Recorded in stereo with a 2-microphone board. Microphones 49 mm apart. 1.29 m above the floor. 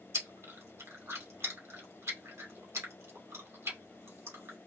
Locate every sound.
0.1 s chewing: 70° right (ahead or behind), 2 m